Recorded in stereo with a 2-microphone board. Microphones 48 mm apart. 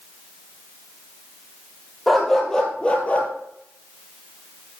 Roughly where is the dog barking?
Centre.